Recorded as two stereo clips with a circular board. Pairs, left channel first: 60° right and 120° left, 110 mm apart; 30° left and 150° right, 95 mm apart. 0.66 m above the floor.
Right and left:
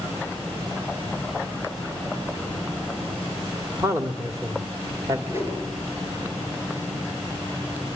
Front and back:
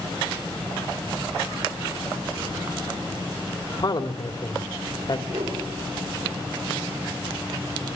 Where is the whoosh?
170° right, 7.5 m.